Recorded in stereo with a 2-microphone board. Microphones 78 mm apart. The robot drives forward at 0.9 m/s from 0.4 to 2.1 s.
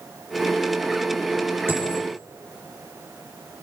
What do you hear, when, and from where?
1.7 s a dropped coin: 35° right (ahead or behind), 6 m